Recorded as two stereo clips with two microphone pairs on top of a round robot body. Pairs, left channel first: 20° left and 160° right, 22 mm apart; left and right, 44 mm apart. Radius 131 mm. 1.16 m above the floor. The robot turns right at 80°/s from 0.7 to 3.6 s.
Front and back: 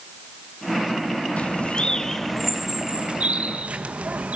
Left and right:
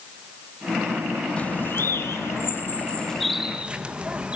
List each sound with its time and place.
1.4 s a bird: 25° left, 1.7 m; by 4.4 s 155° right, 1.7 m